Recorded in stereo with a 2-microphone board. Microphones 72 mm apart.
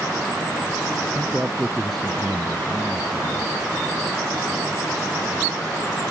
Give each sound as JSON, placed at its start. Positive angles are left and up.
{"t": 1.1, "sound": "a man speaking", "side_deg": -15}